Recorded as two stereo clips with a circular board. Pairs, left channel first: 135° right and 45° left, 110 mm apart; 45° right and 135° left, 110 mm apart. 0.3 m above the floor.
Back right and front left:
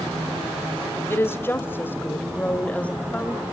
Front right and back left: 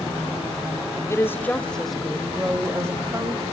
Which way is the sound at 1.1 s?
85° right.